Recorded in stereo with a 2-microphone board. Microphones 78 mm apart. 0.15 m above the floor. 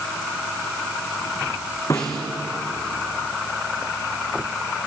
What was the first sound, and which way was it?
A snare drum, 40° left (ahead or behind).